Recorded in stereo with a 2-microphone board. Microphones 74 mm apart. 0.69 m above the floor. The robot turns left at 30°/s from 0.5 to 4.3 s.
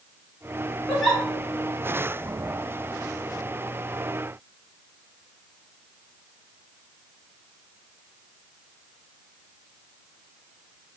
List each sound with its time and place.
0.9 s a giggle: 5° left (ahead or behind), 2 m; by 1.2 s 5° right (ahead or behind), 2 m